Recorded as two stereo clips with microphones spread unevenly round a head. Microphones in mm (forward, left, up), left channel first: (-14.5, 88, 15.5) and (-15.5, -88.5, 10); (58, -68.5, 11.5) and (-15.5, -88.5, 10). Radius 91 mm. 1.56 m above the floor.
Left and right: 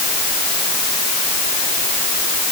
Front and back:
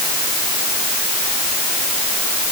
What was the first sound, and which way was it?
Only background noise.